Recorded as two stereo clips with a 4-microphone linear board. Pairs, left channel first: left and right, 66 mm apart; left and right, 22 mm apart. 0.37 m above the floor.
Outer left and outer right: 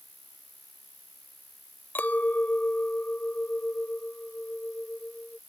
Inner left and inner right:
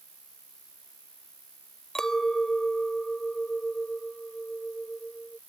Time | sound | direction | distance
0.0 | an insect | 75° right (ahead or behind) | ?
1.9 | a clink | 30° left (ahead or behind) | ?